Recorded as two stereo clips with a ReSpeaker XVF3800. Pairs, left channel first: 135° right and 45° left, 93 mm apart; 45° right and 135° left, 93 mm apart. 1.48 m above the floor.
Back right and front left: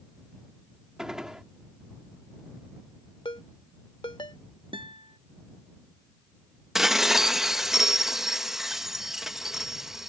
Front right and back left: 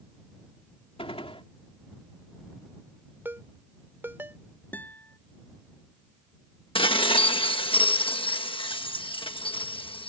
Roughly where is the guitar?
Ahead left.